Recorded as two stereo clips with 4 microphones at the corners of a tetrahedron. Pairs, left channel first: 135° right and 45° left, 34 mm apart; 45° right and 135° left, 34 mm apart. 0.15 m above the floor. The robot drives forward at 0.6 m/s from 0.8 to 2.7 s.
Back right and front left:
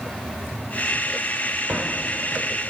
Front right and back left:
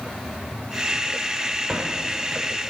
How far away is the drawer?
About 3 m.